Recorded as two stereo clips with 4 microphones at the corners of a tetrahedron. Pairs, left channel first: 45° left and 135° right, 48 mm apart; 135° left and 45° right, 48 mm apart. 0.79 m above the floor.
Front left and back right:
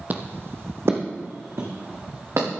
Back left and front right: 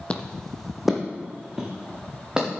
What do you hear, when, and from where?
0.1 s footsteps: 170° right, 1.0 m; by 2.5 s 115° right, 3.5 m